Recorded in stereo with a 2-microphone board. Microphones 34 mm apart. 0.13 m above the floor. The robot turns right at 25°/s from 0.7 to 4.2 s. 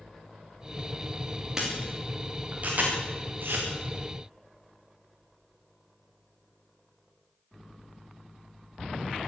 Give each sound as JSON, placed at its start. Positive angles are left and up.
{"t": 1.6, "sound": "a camera shutter", "side_deg": -15, "distance_m": 7.0}